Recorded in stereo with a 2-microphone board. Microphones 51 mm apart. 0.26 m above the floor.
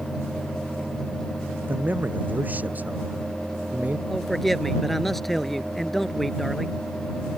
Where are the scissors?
No scissors in this recording.